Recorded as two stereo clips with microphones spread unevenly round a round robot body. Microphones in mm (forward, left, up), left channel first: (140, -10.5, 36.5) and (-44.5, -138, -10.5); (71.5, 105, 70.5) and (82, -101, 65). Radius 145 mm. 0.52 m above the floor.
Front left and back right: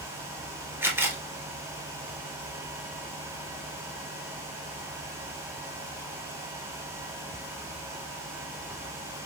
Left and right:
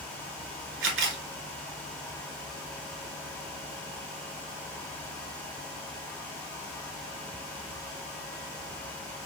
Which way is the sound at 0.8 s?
60° right.